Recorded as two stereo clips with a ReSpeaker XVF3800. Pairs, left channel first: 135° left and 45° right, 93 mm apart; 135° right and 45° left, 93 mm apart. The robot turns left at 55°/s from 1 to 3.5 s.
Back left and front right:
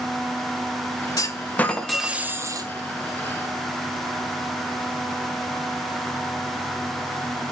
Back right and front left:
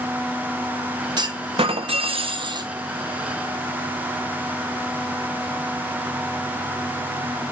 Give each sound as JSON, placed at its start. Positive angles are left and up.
{"t": 1.2, "sound": "a clunk", "azimuth_deg": 85, "distance_m": 0.9}